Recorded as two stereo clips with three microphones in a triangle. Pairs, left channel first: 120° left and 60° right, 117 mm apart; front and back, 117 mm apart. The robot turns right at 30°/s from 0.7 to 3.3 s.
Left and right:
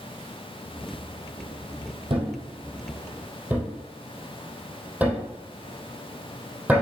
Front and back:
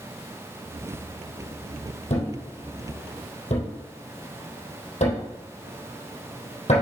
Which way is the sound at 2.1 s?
20° right.